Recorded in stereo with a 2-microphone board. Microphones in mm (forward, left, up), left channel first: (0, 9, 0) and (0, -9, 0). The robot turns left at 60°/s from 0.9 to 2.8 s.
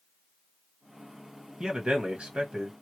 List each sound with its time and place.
1.6 s a man speaking: 45° right, 1.6 m; by 2.7 s 110° right, 1.6 m